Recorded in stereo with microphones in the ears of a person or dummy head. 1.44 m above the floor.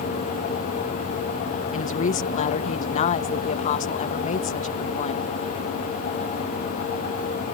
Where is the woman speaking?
35° left (ahead or behind).